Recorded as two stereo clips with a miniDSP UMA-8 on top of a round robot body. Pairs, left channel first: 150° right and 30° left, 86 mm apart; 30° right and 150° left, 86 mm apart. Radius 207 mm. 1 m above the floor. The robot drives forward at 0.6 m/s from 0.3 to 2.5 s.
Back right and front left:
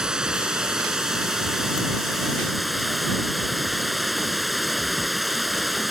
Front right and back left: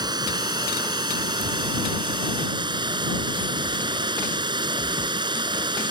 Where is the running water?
110° left; by 5.9 s 120° left.